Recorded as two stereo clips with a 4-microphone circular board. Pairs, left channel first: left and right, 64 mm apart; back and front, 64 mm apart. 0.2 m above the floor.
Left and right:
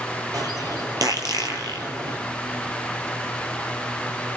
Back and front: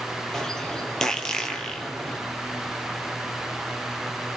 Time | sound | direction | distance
0.3 | a bird | 100° right | 3.5 m